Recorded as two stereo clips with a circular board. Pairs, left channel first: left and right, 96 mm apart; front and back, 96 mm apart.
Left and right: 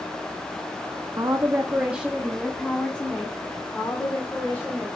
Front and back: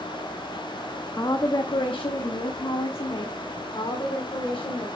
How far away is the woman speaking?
About 0.9 m.